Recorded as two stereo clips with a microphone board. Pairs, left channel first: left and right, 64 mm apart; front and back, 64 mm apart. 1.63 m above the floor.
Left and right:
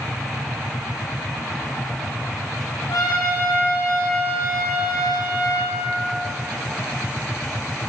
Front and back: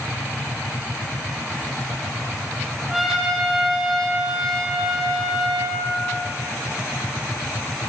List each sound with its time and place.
2.9 s a trumpet: 90° left, 3 m